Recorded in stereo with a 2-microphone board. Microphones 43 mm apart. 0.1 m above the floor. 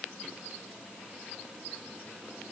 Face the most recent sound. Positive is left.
No sound to turn to.